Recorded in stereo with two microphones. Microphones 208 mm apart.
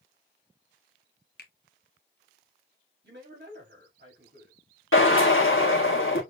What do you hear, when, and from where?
1.4 s a finger snap: 50° left (ahead or behind), 0.9 m
3.0 s a man speaking: 55° right (ahead or behind), 3 m
4.9 s a drill: 80° left, 1.6 m